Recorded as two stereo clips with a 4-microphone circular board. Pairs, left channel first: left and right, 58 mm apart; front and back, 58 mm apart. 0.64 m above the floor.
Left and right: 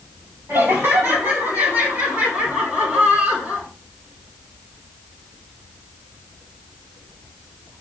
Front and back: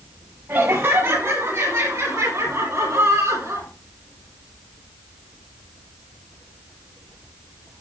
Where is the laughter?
140° right, 5 m; by 3.7 s 160° right, 7.5 m.